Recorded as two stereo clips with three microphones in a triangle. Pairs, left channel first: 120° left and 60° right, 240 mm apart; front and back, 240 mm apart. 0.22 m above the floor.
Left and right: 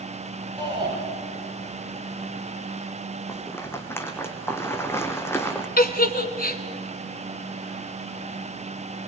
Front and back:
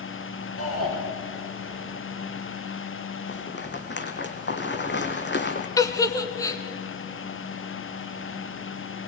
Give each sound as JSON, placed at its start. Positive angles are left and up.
{"t": 0.6, "sound": "a shout", "azimuth_deg": 10, "distance_m": 6.0}
{"t": 3.3, "sound": "a rattle", "azimuth_deg": 40, "distance_m": 2.0}
{"t": 5.8, "sound": "a giggle", "azimuth_deg": 75, "distance_m": 1.5}